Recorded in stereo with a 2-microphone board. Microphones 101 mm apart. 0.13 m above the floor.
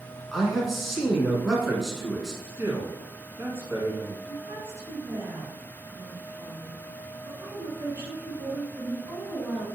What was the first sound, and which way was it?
A man speaking, centre (ahead or behind).